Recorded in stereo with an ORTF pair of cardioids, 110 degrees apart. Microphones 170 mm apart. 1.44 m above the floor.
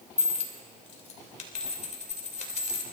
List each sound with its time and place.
0.2 s a dropped coin: 45° left, 3 m